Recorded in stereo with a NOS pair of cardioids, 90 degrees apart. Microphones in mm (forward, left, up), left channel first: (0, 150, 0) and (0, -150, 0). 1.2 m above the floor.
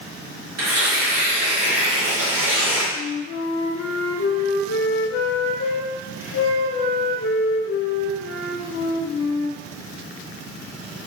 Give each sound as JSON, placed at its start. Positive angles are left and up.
{"t": 0.6, "sound": "tearing paper", "azimuth_deg": -55, "distance_m": 2.0}
{"t": 2.9, "sound": "a flute", "azimuth_deg": 50, "distance_m": 0.5}